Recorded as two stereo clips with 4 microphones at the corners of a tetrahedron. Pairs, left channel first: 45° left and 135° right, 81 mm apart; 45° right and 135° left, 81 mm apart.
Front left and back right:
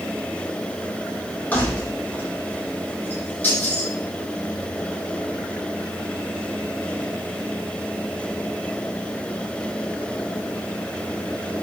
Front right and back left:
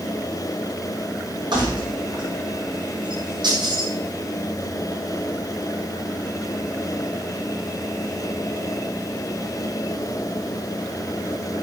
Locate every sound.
1.5 s keys jangling: 115° left, 8 m